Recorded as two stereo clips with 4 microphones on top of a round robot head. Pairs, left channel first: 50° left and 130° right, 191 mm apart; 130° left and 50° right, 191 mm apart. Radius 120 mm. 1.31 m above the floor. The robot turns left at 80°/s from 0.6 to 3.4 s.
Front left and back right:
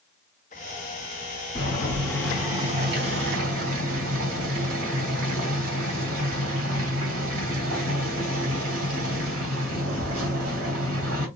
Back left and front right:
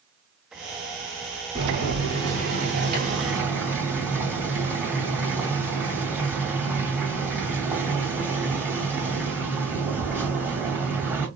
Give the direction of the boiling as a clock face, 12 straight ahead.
11 o'clock.